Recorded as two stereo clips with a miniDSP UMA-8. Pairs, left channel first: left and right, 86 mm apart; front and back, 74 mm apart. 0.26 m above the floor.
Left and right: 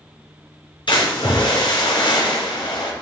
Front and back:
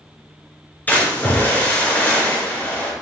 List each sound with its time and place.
0.9 s a splash: 65° left, 3.5 m